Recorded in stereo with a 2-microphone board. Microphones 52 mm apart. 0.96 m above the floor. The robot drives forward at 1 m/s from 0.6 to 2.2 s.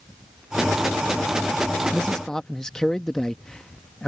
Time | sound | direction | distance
1.9 | a man speaking | 15° left (ahead or behind) | ?